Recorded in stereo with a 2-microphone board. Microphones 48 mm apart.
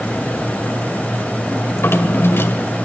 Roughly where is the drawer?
Left.